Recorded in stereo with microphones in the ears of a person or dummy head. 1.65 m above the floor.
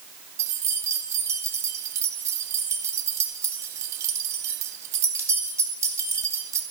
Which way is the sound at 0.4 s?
20° right (ahead or behind).